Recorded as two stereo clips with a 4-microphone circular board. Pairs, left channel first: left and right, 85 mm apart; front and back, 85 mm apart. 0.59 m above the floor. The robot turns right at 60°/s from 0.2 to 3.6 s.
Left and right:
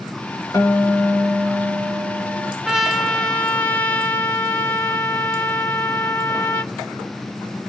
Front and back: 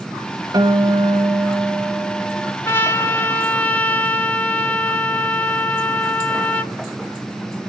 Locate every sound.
0.5 s a guitar: 140° left, 2 m; by 2.5 s 100° right, 2 m
2.6 s a trumpet: 10° right, 1.1 m; by 6.7 s 45° left, 1.1 m